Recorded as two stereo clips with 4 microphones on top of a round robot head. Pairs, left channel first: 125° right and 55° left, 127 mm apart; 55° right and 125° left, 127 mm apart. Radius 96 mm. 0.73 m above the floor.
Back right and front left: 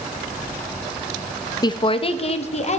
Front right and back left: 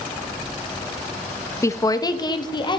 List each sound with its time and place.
1.6 s a woman speaking: 105° right, 0.6 m